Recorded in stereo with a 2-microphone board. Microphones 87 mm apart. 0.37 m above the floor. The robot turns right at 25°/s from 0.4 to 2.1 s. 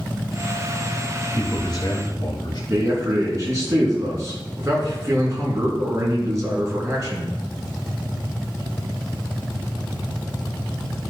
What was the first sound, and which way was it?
A man speaking, 45° left (ahead or behind).